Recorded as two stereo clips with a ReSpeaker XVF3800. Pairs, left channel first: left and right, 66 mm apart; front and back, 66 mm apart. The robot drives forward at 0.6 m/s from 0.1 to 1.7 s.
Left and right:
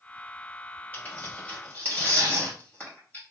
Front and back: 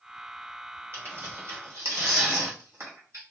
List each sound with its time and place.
0.9 s tearing paper: 140° left, 2 m; by 3.2 s 150° left, 2.5 m